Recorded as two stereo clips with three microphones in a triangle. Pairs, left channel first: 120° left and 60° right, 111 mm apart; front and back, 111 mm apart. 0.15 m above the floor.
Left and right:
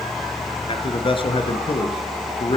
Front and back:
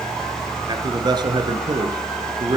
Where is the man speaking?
140° left, 2 m.